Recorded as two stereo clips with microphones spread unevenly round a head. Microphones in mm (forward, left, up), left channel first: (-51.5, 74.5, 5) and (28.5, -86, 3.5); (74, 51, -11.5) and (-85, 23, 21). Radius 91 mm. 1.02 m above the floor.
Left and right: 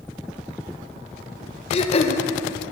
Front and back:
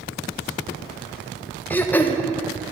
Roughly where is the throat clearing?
Left.